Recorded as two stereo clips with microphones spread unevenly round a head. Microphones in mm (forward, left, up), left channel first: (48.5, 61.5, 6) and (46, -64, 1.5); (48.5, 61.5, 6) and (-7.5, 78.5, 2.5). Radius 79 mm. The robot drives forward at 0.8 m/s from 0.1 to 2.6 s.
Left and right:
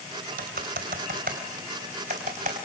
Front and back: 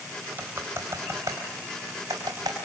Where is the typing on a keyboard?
120° right, 3 m; by 2.5 s 140° right, 4 m.